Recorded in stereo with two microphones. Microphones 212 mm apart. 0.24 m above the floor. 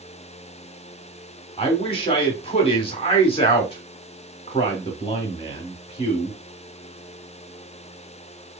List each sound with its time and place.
1.6 s a man speaking: 25° left (ahead or behind), 1.7 m